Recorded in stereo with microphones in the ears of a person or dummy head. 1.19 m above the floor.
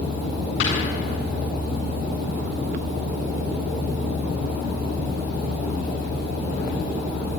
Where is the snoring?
85° left, 8.5 m.